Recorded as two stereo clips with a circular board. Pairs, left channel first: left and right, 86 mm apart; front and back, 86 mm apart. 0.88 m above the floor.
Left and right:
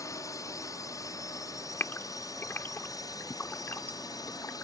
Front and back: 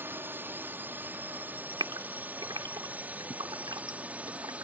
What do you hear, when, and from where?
0.0 s a drone: 125° left; by 4.6 s 110° left
1.8 s a gasp: 155° left